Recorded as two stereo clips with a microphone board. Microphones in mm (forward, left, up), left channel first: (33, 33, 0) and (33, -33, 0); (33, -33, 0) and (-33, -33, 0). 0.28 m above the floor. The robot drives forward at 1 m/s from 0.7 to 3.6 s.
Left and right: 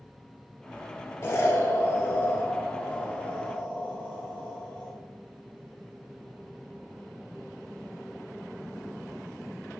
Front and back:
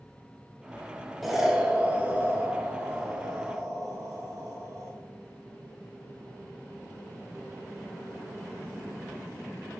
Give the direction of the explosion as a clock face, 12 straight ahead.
9 o'clock.